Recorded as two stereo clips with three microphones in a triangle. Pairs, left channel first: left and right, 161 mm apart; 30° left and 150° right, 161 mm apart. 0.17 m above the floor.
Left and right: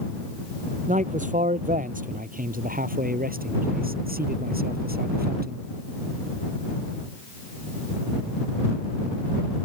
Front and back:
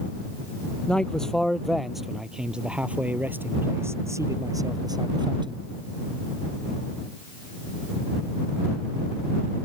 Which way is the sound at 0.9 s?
55° right.